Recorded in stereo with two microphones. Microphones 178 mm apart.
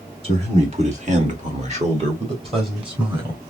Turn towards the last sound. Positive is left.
turn(degrees=-25)  # may be behind; listen again after turning